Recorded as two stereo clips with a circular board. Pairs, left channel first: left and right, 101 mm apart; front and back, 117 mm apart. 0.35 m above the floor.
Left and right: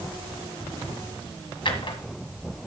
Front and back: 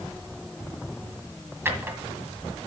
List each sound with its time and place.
1.6 s a drawer: 115° left, 1.7 m